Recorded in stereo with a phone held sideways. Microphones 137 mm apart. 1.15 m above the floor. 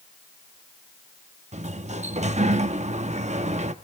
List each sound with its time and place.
1.5 s a sliding door: 55° right (ahead or behind), 0.8 m